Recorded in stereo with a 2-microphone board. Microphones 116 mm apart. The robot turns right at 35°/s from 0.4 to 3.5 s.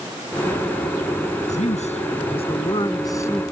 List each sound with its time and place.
1.5 s a man speaking: 95° left; by 3.4 s 160° left